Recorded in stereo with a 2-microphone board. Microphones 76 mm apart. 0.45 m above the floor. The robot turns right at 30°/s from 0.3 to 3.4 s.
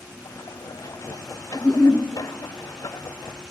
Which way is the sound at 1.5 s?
Centre (ahead or behind).